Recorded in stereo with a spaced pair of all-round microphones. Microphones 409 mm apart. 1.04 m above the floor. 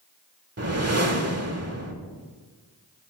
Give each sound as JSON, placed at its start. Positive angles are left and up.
{"t": 0.6, "sound": "a whoosh", "side_deg": -35, "distance_m": 1.1}